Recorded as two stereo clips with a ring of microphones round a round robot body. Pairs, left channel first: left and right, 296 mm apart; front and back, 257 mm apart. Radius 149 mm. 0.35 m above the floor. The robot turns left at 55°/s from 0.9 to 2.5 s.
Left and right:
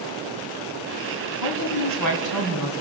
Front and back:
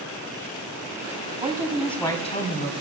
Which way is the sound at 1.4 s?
115° left.